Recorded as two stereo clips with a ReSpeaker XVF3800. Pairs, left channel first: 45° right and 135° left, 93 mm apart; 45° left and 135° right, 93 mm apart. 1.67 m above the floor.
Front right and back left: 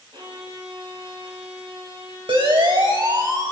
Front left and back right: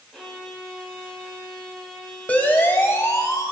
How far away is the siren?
About 2.5 m.